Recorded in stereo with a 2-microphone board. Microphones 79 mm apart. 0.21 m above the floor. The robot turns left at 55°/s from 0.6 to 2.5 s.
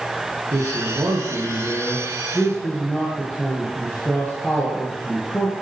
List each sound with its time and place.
0.5 s a man speaking: 100° right, 3.5 m; by 5.5 s 155° left, 3.5 m